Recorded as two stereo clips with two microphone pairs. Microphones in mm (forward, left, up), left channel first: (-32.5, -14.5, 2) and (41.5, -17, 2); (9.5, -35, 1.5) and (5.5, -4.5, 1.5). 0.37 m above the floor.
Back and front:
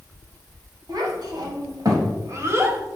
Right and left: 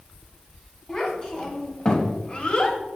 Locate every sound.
0.9 s a child speaking: 15° right, 2.5 m; by 2.8 s 50° right, 1.5 m